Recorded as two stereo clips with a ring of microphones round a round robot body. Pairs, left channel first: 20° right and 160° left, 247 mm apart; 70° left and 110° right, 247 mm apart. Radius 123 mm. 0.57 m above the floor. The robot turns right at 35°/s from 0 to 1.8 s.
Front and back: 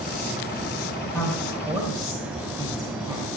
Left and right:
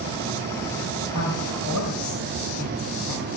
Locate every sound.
1.1 s a woman speaking: 60° left, 3 m; by 3.3 s 80° left, 3 m